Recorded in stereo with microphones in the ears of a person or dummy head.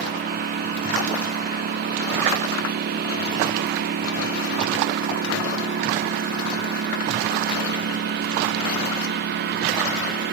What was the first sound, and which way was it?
A lawn mower, 55° right (ahead or behind).